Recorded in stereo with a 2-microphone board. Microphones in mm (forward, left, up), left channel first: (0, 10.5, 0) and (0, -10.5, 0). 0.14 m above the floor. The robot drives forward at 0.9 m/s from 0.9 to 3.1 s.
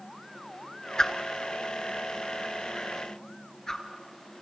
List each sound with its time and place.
1.0 s a whoosh: 35° left (ahead or behind), 1.5 m; by 3.8 s 25° left (ahead or behind), 2.0 m